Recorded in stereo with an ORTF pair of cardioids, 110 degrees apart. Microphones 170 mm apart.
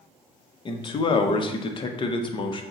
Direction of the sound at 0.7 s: 30° left.